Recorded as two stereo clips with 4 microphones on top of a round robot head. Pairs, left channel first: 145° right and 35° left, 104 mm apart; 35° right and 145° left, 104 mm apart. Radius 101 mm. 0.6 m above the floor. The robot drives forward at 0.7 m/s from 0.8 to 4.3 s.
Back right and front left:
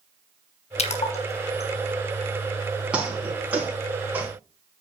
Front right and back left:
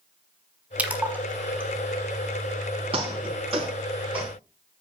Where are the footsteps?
115° left, 7.5 m; by 4.3 s 110° left, 7 m.